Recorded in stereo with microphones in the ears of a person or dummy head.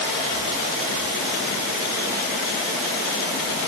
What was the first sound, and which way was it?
Only background noise.